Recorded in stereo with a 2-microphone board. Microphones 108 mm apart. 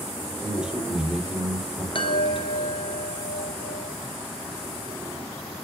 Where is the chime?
50° left (ahead or behind), 1.5 m.